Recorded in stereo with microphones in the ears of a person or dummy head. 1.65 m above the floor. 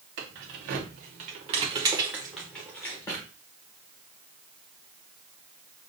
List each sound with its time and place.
0.2 s keys jangling: 60° right (ahead or behind), 1.3 m; by 3.2 s 30° left (ahead or behind), 1.2 m